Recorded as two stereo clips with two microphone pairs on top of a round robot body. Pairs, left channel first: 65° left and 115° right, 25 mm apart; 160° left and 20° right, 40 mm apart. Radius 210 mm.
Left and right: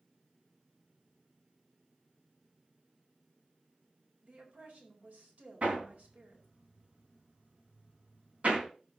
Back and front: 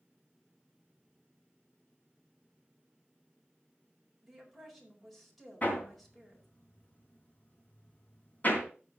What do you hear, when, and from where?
4.2 s a woman speaking: 105° right, 4.5 m
5.6 s hammering: 150° right, 3 m